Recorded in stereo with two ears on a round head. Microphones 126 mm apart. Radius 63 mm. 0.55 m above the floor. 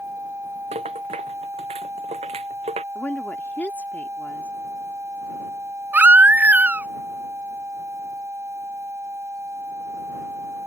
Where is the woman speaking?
10° left (ahead or behind).